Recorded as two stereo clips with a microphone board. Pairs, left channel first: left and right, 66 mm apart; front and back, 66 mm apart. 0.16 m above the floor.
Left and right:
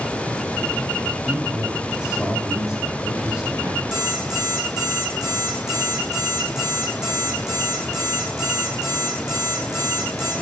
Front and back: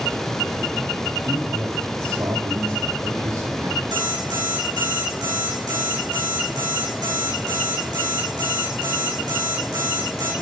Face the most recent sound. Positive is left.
turn(degrees=-170)